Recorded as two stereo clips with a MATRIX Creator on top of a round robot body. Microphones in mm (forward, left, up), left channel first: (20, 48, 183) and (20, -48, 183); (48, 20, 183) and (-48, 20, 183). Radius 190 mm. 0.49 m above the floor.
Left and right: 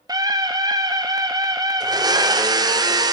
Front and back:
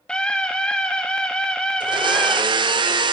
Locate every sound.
0.1 s a scream: 75° right, 1.1 m
1.8 s a blender: 140° right, 0.6 m